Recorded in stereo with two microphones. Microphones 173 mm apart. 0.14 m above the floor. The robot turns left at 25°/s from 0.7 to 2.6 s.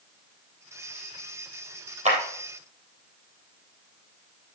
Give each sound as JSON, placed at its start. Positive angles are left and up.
{"t": 2.0, "sound": "a clap", "side_deg": -40, "distance_m": 3.0}